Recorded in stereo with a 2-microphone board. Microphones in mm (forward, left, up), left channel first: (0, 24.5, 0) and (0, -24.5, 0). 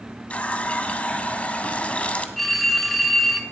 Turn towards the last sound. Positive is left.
turn(degrees=5)  # may be behind; listen again after turning